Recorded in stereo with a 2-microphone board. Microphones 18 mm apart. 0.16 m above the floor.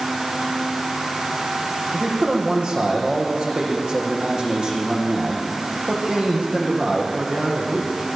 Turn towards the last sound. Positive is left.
turn(degrees=-70)  # may be behind; listen again after turning